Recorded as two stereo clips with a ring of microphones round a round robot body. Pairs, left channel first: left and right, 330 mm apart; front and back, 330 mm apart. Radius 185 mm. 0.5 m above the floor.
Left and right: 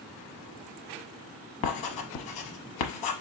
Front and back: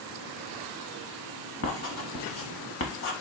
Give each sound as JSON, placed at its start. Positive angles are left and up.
{"t": 1.6, "sound": "writing", "azimuth_deg": 55, "distance_m": 0.7}